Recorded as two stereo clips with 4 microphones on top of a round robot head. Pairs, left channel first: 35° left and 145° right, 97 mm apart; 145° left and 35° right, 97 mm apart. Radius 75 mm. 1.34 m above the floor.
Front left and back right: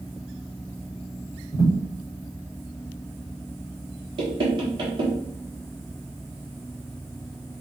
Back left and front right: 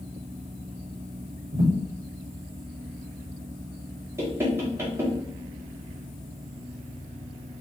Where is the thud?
30° right, 1.4 m.